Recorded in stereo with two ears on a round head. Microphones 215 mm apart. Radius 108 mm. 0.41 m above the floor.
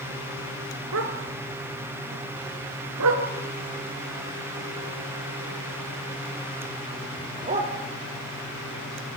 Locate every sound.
0.9 s a dog barking: 60° right (ahead or behind), 2.5 m; by 7.7 s 30° right (ahead or behind), 5 m